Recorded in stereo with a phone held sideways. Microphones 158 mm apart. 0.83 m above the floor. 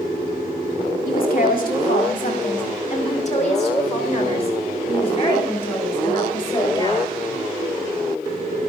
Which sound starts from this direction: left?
A woman speaking, at 1.1 s.